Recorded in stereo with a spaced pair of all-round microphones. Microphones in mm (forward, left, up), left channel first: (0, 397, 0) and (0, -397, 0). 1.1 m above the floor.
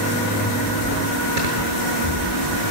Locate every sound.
1.4 s snoring: 85° right, 7.5 m